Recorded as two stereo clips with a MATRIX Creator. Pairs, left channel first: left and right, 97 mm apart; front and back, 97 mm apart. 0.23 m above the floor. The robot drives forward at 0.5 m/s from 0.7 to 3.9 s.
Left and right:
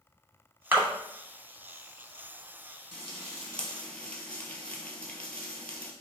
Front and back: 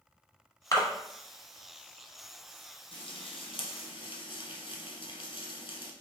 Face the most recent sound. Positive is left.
turn(degrees=10)